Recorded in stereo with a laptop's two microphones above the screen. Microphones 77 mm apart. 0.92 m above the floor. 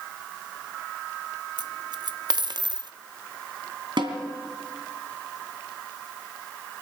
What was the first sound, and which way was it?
A dropped coin, 60° right (ahead or behind).